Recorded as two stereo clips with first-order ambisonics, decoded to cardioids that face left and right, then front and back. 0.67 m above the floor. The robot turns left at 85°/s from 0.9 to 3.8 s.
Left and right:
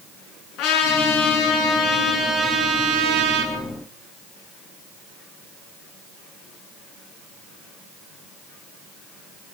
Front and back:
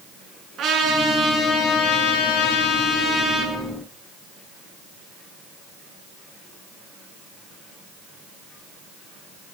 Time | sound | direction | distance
0.6 | a trumpet | 125° left | 8.5 m